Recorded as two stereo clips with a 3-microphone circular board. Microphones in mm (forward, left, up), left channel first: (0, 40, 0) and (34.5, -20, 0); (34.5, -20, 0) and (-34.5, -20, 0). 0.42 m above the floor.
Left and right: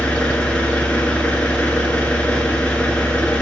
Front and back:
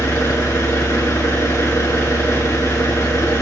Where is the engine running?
45° left, 3 m.